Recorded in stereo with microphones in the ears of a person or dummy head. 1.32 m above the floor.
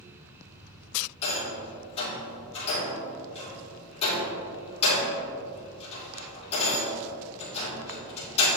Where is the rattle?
35° left (ahead or behind), 2.5 m.